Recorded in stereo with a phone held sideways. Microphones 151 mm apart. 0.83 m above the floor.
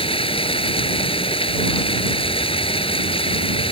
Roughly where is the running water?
Left.